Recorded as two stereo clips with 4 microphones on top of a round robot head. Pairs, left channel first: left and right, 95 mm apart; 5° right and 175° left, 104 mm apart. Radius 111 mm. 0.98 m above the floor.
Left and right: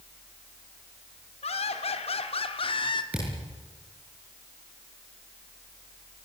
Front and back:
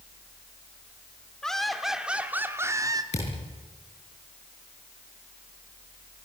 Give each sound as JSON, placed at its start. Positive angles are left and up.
{"t": 1.4, "sound": "laughter", "azimuth_deg": 80, "distance_m": 3.5}
{"t": 3.1, "sound": "a thud", "azimuth_deg": -10, "distance_m": 8.0}